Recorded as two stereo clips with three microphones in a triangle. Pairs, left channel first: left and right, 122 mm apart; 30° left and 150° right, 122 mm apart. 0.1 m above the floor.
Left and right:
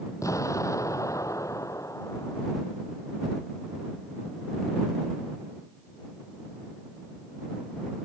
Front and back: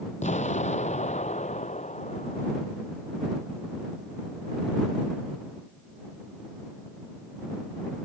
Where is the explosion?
30° left.